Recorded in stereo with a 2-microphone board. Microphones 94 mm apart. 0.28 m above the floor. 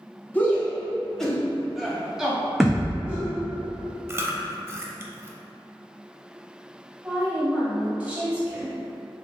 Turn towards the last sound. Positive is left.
turn(degrees=-15)  # may be behind; listen again after turning